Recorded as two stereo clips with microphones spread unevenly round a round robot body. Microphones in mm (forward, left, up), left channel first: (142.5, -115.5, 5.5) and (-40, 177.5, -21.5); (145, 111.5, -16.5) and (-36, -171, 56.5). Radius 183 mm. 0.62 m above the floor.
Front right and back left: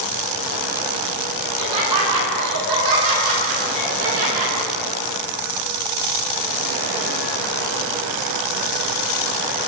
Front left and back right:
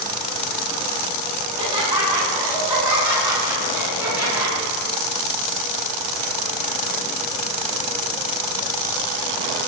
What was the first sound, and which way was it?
Laughter, 160° left.